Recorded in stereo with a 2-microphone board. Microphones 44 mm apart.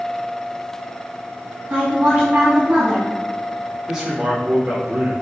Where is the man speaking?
10° right (ahead or behind), 2 m.